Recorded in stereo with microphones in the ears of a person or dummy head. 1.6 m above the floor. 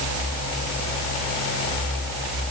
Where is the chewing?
I don't hear chewing.